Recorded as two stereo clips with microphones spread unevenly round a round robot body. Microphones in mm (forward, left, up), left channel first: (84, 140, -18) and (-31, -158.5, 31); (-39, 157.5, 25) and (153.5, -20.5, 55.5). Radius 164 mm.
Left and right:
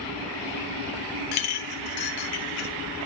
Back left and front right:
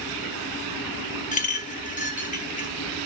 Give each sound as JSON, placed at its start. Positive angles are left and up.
{"t": 1.3, "sound": "a clink", "azimuth_deg": 75, "distance_m": 1.0}